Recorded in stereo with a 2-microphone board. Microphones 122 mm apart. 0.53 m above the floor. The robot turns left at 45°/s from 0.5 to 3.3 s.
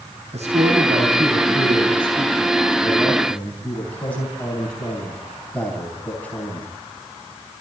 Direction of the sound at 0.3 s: 65° right (ahead or behind).